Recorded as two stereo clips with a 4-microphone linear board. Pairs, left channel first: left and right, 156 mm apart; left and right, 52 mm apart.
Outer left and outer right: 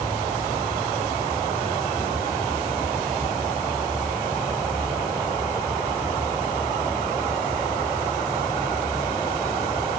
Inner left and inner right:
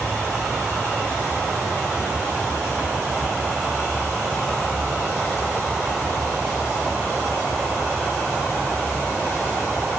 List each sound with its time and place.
Only background noise.